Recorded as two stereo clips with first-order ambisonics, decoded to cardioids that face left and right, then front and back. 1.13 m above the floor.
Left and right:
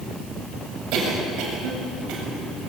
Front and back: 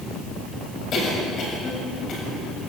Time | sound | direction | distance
0.9 | a cough | 55° right | 8 m